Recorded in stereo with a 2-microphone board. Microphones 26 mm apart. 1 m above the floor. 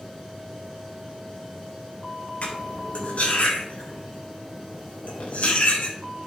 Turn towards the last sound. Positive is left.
turn(degrees=80)